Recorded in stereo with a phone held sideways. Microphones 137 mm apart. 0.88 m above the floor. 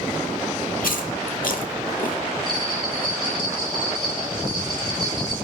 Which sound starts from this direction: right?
A bell, at 2.5 s.